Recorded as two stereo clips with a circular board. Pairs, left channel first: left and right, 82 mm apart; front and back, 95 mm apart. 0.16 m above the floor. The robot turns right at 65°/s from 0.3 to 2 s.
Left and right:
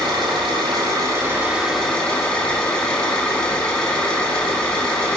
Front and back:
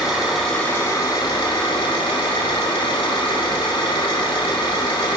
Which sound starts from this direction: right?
An engine running, at 0.0 s.